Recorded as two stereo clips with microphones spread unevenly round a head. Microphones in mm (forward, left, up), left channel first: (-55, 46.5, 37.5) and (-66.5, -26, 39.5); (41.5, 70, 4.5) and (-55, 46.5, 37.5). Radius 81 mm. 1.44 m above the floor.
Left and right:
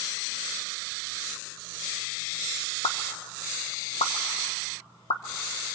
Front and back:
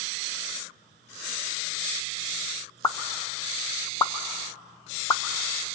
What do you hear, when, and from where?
2.8 s a pop: 75° left, 1.3 m